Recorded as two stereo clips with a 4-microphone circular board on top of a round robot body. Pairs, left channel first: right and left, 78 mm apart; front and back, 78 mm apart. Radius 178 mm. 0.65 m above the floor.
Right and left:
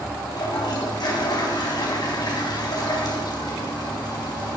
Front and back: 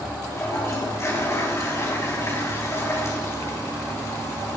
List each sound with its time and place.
0.3 s a toilet flushing: 55° right, 4 m